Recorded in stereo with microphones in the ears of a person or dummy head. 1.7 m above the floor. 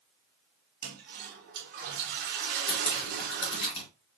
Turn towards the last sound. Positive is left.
turn(degrees=40)  # may be behind; listen again after turning